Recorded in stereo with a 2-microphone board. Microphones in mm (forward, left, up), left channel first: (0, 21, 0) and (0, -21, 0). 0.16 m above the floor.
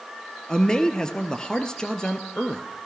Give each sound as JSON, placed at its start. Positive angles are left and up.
{"t": 0.5, "sound": "a man speaking", "side_deg": 20, "distance_m": 2.5}